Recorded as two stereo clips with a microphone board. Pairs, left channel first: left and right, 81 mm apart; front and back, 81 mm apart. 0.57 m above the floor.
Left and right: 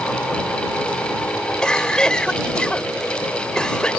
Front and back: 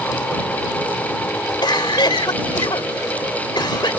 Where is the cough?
10° left.